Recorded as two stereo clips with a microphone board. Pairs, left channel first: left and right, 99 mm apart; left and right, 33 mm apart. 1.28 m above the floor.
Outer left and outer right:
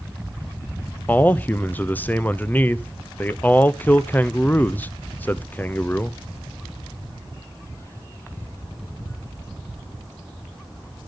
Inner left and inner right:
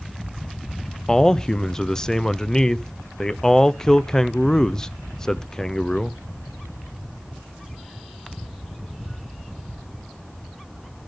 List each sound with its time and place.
1.1 s a man speaking: 20° left (ahead or behind), 0.5 m